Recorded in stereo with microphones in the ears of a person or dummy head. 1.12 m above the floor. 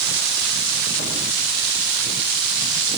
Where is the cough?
I don't hear a cough.